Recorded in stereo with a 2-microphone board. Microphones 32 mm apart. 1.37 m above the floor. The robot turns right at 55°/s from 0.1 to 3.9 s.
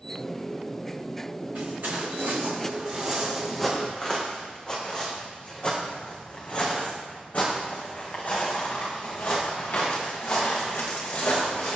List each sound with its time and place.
1.6 s footsteps: 55° right (ahead or behind), 5.5 m; by 11.8 s 80° left, 6.5 m